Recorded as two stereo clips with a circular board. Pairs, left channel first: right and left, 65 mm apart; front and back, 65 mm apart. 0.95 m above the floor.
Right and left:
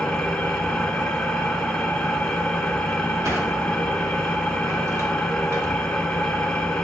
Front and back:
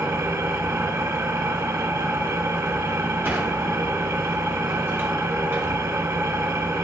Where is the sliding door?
125° left, 3 m.